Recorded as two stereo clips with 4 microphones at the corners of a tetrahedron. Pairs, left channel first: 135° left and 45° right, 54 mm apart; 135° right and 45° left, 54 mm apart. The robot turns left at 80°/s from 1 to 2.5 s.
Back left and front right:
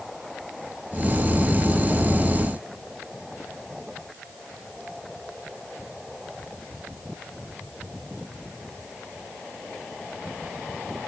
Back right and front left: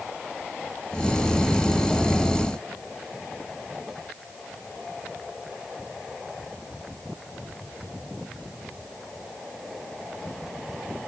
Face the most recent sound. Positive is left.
No sound to turn to.